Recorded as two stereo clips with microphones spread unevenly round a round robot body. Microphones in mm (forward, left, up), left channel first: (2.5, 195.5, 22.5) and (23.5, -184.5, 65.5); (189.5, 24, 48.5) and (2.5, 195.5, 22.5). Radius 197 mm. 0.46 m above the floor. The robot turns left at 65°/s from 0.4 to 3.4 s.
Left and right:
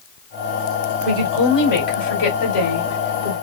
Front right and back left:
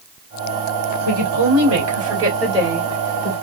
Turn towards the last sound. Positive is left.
turn(degrees=45)